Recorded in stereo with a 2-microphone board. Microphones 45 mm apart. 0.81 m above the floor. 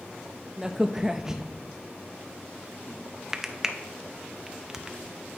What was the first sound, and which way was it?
A crack, 15° right (ahead or behind).